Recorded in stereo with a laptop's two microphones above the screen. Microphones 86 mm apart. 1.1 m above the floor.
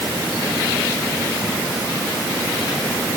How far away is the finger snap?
No finger snap in this recording.